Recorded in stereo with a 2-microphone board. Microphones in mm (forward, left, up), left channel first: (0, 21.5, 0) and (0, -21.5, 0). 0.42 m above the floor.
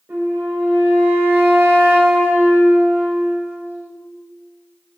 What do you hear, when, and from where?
0.1 s a flute: 70° right (ahead or behind), 0.7 m